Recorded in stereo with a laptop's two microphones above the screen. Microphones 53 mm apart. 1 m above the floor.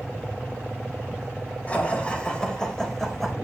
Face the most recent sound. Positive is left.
turn(degrees=-5)  # may be behind; listen again after turning